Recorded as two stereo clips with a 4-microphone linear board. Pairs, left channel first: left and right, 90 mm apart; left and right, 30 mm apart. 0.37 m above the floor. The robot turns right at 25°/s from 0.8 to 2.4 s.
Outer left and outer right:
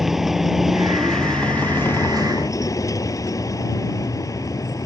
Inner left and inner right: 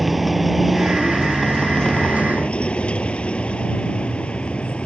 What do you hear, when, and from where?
0.0 s a vehicle: 5° right; by 4.9 s 35° left